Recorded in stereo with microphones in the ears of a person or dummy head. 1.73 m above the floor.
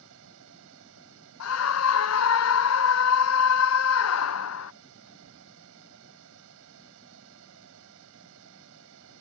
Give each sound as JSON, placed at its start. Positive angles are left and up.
{"t": 0.0, "sound": "a fan", "side_deg": -80}
{"t": 1.4, "sound": "a scream", "side_deg": 75}